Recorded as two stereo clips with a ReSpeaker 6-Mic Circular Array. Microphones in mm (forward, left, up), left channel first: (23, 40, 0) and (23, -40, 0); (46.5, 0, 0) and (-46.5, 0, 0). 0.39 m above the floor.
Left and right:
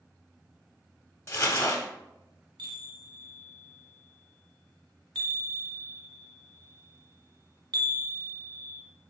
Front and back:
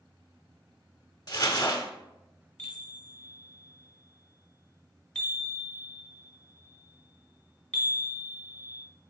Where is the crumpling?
40° left, 0.7 m.